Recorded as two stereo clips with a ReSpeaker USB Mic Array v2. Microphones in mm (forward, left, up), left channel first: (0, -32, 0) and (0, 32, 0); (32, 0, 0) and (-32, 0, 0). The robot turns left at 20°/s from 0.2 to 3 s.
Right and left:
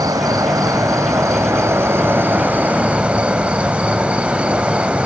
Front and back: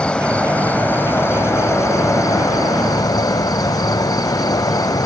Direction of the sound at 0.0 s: 75° left.